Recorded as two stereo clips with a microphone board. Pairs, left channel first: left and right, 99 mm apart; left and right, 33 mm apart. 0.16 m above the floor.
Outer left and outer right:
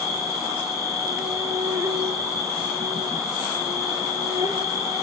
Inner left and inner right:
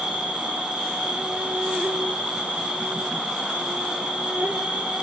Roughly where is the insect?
Right.